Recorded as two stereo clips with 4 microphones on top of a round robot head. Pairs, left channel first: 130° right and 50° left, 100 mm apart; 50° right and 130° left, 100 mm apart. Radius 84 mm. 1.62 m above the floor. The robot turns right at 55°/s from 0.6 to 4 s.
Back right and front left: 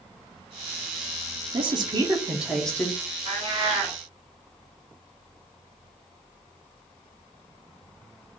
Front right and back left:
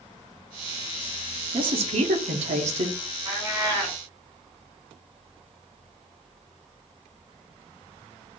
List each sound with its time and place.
1.5 s a woman speaking: 85° left, 0.9 m; by 3.0 s 165° left, 0.9 m
3.2 s a cat meowing: 70° left, 1.7 m; by 4.0 s 110° left, 1.7 m